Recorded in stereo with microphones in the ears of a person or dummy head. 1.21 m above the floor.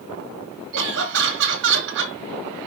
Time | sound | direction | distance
0.7 | laughter | 65° right (ahead or behind) | 2 m